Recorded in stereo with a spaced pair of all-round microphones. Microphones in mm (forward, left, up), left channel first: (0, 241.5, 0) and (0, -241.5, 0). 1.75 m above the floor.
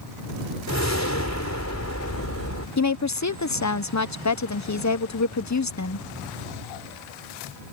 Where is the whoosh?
35° left (ahead or behind).